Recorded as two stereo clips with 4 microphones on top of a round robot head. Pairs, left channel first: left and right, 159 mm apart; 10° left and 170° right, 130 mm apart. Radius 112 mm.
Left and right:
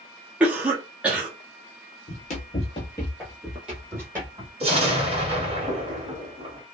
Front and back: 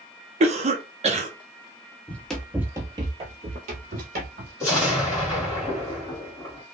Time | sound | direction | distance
0.4 | a cough | 170° right | 0.8 m
2.1 | running footsteps | 80° left | 0.7 m
4.6 | an explosion | 50° right | 1.5 m